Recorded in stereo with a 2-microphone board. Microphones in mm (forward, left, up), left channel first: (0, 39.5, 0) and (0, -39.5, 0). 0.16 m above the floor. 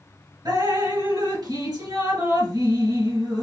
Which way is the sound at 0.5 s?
60° right (ahead or behind).